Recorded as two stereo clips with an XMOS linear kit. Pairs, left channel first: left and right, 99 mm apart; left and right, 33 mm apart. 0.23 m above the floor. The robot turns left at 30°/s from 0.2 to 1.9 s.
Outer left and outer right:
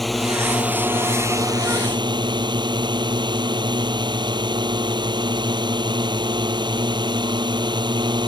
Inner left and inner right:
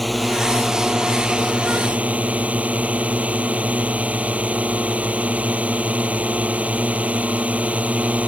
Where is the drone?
Straight ahead; by 8.3 s 50° right.